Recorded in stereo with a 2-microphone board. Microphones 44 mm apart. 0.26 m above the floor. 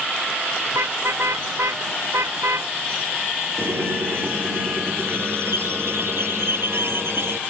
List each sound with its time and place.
0.7 s a car horn: 85° right
3.6 s a squeak: 65° right (ahead or behind)